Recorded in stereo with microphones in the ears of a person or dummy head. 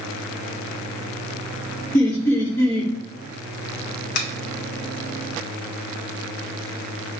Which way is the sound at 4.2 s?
55° left (ahead or behind).